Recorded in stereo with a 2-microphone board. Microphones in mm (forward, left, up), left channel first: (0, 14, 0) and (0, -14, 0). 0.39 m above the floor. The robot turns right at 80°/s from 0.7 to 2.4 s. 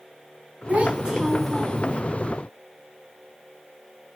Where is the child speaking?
55° right, 3 m; by 2.0 s 50° left, 3 m.